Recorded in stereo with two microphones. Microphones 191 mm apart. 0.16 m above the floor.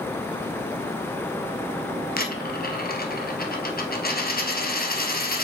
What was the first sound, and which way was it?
A dropped coin, 50° left (ahead or behind).